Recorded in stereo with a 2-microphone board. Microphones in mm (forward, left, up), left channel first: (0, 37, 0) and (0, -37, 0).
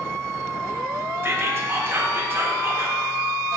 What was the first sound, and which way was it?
Whispering, 35° right (ahead or behind).